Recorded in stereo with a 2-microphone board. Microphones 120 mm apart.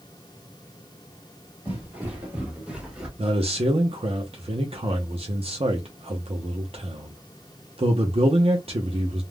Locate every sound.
1.6 s footsteps: 15° right (ahead or behind), 1.8 m; by 3.1 s 5° right (ahead or behind), 1.4 m
3.2 s a man speaking: 55° right (ahead or behind), 0.6 m